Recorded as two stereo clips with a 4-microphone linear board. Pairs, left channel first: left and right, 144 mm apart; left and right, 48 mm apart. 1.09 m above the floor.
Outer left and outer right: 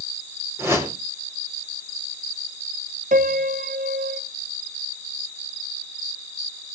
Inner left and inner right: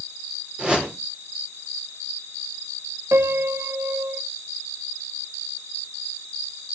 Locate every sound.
0.6 s a whoosh: 15° right (ahead or behind), 3.5 m
3.1 s a piano: 70° right (ahead or behind), 1.0 m